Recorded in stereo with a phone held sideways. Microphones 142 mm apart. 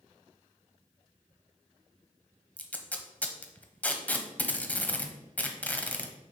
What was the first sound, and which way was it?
Tape being pulled, 10° left (ahead or behind).